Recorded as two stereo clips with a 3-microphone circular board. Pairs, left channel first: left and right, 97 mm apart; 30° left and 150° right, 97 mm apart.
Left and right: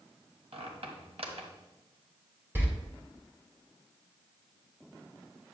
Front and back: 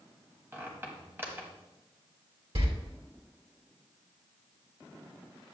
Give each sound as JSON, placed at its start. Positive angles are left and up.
{"t": 0.5, "sound": "a squeak", "azimuth_deg": -80, "distance_m": 1.5}
{"t": 2.5, "sound": "a door slam", "azimuth_deg": -160, "distance_m": 2.5}